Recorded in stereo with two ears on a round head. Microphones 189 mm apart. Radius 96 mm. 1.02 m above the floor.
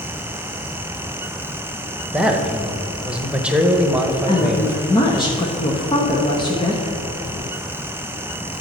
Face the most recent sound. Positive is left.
turn(degrees=25)  # may be behind; listen again after turning